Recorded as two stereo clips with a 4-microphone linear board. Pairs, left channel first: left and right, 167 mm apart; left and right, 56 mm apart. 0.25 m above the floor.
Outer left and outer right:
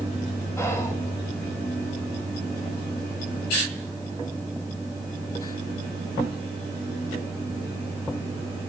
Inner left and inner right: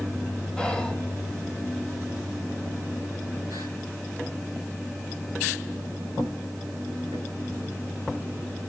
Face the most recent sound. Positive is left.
turn(degrees=15)  # may be behind; listen again after turning